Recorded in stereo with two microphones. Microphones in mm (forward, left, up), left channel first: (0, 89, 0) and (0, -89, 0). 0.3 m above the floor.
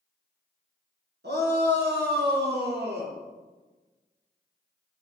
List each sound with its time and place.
1.2 s a shout: 75° right (ahead or behind), 3.5 m; by 3.1 s 70° right (ahead or behind), 4 m